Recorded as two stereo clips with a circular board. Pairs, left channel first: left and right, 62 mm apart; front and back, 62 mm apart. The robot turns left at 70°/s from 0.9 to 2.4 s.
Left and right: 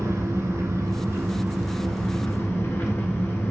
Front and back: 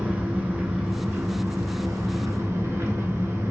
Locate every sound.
0.0 s an engine running: 115° right, 1.1 m; by 3.5 s 140° left, 1.1 m